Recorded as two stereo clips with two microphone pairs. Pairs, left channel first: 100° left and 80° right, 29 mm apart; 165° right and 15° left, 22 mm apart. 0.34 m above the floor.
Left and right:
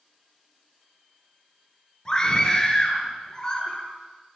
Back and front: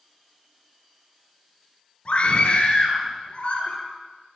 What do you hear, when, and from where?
2.0 s a scream: 165° left, 6.5 m